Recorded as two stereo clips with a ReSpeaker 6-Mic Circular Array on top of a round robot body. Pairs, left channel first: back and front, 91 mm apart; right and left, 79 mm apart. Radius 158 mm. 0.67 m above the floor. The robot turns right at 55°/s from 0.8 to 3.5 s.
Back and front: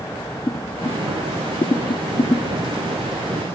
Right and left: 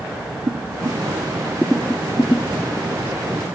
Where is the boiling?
130° left, 0.7 m; by 2.9 s 115° right, 0.7 m.